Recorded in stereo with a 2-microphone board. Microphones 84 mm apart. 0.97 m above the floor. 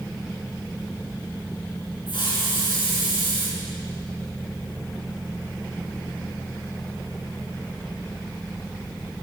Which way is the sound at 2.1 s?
80° left.